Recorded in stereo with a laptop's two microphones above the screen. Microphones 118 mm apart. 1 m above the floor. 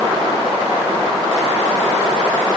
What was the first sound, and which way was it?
Only background noise.